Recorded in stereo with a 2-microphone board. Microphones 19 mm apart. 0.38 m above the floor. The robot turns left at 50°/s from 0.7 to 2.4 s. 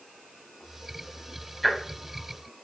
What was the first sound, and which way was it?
Ticking, centre (ahead or behind).